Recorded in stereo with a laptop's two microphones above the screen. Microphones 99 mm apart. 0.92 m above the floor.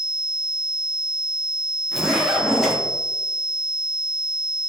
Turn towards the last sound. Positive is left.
turn(degrees=0)  # may be behind; listen again after turning